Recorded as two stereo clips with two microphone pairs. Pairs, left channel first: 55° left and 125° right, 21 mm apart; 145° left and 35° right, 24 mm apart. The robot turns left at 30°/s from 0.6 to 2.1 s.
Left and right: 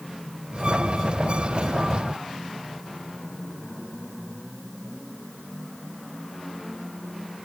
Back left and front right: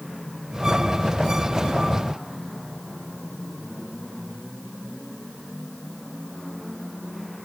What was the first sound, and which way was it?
Only background noise.